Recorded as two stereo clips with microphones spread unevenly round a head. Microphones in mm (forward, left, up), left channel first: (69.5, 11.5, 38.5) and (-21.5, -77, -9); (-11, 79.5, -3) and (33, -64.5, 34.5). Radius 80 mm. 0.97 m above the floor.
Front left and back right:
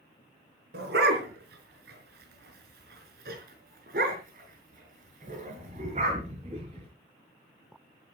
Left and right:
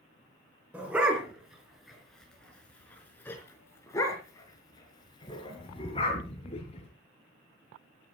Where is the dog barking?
155° right, 4.5 m; by 6.9 s 165° left, 5 m.